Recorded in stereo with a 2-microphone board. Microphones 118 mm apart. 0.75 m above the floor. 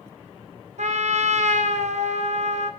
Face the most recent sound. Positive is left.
turn(degrees=-80)